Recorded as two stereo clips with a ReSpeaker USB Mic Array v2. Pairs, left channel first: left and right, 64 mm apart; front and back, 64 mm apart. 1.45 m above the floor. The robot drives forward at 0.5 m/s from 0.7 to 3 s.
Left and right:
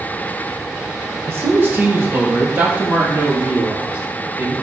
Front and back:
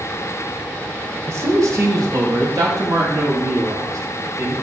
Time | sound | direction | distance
1.3 | a man speaking | 140° right | 1.2 m